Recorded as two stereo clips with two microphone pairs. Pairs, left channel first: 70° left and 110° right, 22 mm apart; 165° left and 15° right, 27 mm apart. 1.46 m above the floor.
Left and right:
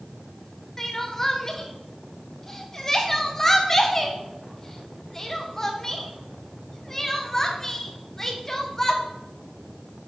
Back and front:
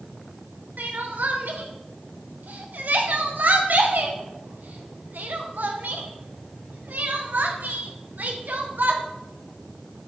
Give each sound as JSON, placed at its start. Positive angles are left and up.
{"t": 0.8, "sound": "crying", "azimuth_deg": 0, "distance_m": 1.3}